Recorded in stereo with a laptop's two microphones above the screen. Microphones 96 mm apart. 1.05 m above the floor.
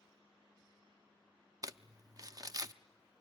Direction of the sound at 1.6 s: 40° right (ahead or behind).